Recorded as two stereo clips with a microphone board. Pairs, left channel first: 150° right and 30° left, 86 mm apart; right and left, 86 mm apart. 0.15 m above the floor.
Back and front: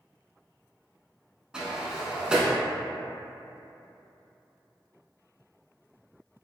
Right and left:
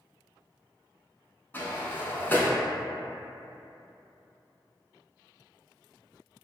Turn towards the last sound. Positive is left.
turn(degrees=-45)